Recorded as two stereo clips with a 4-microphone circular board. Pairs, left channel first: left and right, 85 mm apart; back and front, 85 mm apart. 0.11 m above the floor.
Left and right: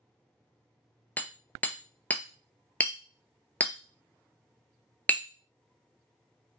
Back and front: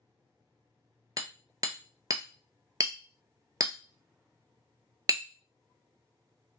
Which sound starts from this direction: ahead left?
Hammering, at 1.2 s.